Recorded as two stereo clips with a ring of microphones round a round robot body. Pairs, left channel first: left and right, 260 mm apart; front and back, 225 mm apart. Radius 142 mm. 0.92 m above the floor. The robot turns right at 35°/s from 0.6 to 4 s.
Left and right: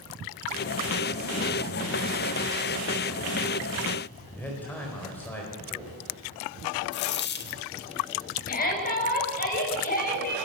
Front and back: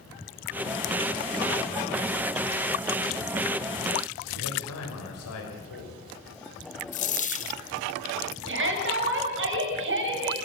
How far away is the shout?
About 6 m.